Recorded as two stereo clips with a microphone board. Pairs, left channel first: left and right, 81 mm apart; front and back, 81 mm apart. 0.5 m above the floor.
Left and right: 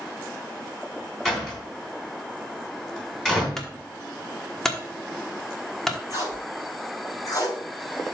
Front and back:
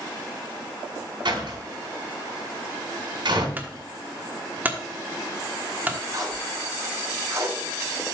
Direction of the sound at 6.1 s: 135° left.